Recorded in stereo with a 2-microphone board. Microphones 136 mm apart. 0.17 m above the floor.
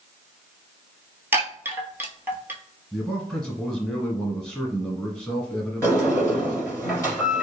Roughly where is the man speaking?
Centre.